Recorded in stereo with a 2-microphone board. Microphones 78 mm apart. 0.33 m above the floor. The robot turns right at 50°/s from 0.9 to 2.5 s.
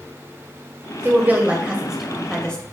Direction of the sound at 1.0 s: 30° right (ahead or behind).